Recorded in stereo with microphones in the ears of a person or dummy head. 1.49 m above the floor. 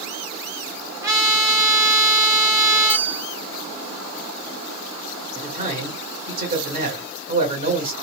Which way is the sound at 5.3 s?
50° right (ahead or behind).